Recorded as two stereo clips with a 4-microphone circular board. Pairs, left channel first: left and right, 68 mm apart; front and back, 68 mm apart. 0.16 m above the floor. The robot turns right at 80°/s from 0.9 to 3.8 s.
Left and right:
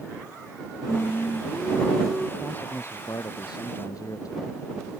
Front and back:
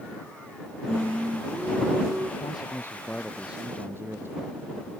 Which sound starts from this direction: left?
Singing, at 0.9 s.